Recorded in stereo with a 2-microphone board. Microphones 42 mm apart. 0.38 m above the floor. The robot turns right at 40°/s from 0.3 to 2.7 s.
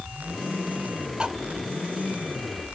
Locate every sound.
1.2 s cutlery clinking: 20° right (ahead or behind), 0.7 m; by 1.3 s 25° right (ahead or behind), 0.7 m